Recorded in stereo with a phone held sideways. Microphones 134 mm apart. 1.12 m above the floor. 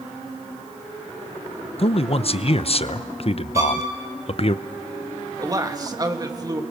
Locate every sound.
1.8 s a man speaking: 50° left (ahead or behind), 0.7 m
3.5 s a violin: 25° right (ahead or behind), 5.5 m
5.4 s a man speaking: 25° right (ahead or behind), 2 m